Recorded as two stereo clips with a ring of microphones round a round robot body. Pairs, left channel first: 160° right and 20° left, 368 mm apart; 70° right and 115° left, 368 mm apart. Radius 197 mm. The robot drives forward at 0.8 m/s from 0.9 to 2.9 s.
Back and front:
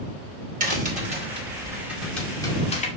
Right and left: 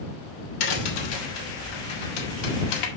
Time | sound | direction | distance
0.6 | a crack | 50° right | 2.5 m